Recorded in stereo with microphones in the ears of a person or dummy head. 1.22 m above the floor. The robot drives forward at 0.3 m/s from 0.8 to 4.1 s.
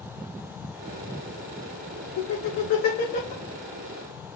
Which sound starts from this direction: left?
Laughter, at 2.2 s.